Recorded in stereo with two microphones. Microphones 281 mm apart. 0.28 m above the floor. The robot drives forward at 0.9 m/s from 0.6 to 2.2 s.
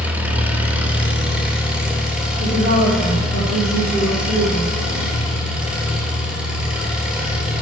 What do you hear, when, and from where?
0.0 s an engine running: 5° right (ahead or behind), 1.6 m
2.4 s a woman speaking: 65° left (ahead or behind), 5 m